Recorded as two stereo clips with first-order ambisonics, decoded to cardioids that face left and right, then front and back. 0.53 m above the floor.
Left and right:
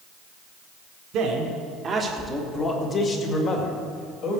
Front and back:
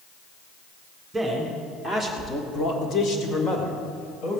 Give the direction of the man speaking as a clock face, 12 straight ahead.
3 o'clock.